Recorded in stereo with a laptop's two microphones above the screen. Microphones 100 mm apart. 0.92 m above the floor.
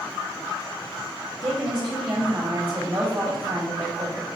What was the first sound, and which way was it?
A woman speaking, 55° right (ahead or behind).